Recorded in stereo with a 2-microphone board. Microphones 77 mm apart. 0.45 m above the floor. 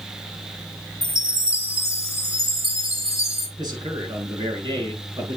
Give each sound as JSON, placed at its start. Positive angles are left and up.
{"t": 1.0, "sound": "a chime", "side_deg": 40, "distance_m": 2.0}
{"t": 3.6, "sound": "a man speaking", "side_deg": -65, "distance_m": 7.0}